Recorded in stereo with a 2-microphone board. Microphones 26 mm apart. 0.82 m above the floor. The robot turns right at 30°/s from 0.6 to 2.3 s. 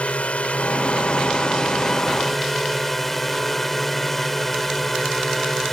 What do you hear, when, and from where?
0.0 s a drone: 120° left; by 5.7 s 175° left